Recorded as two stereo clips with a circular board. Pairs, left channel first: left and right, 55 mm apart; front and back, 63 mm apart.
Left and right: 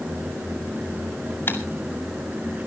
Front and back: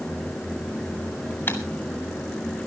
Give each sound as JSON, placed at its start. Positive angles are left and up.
{"t": 1.5, "sound": "typing on a keyboard", "azimuth_deg": 50, "distance_m": 2.5}